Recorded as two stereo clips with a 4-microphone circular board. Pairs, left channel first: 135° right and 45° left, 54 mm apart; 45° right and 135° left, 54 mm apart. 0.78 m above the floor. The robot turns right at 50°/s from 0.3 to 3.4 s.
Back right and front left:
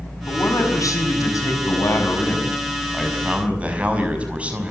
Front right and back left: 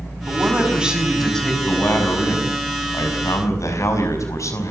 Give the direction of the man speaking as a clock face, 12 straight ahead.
6 o'clock.